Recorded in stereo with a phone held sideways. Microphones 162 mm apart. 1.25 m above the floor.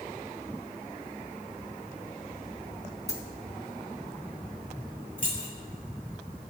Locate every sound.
3.1 s a dropped coin: 45° left (ahead or behind), 2 m
5.2 s keys jangling: 60° left (ahead or behind), 3.5 m